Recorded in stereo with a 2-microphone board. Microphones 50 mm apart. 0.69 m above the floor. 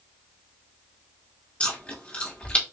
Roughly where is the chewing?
Left.